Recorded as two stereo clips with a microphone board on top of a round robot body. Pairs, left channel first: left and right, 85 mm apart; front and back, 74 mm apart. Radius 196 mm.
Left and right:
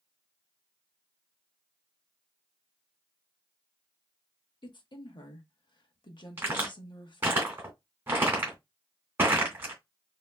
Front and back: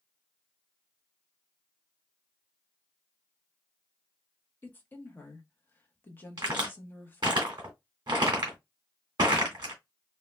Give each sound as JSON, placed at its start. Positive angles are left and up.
{"t": 4.6, "sound": "a woman speaking", "azimuth_deg": 65, "distance_m": 1.1}
{"t": 6.4, "sound": "a crack", "azimuth_deg": -150, "distance_m": 0.8}